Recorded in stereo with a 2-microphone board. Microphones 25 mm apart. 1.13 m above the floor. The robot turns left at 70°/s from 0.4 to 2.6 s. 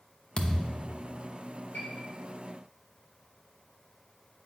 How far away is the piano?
About 4 m.